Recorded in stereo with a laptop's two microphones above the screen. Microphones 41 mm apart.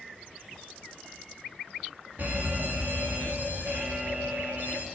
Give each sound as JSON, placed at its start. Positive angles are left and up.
{"t": 2.2, "sound": "a fire alarm", "side_deg": -45, "distance_m": 3.0}